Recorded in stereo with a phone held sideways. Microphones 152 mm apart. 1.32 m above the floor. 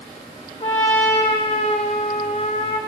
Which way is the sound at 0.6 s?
40° left (ahead or behind).